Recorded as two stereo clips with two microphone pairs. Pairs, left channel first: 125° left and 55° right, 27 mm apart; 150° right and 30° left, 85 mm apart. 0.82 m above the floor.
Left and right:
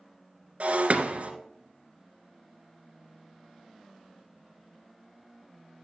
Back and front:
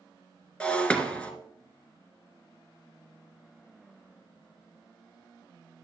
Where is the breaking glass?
70° right, 1.7 m.